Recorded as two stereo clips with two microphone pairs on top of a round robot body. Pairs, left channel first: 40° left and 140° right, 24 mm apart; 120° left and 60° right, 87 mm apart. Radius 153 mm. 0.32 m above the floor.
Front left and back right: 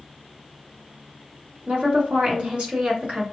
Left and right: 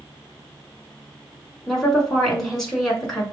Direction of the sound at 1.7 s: 150° right.